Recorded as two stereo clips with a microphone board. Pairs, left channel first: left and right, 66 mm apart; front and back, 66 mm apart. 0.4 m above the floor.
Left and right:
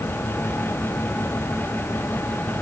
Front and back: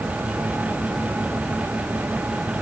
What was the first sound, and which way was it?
Only background noise.